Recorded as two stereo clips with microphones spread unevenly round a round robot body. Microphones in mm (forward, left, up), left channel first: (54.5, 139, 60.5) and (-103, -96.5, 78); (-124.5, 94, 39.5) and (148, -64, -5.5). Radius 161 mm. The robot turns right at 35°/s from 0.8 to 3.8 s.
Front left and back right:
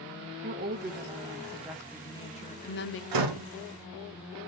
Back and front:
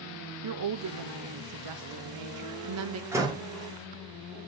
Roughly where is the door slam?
Behind right.